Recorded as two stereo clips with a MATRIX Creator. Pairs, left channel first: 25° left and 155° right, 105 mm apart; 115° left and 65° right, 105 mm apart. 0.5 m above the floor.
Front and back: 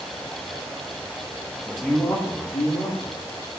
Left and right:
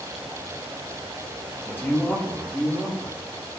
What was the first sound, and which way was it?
A man speaking, 125° left.